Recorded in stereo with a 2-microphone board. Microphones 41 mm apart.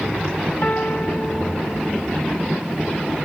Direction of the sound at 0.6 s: 40° left (ahead or behind).